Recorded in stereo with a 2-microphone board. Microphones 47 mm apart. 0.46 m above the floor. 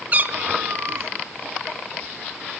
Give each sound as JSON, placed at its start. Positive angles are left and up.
{"t": 0.1, "sound": "a cat meowing", "side_deg": -35, "distance_m": 1.0}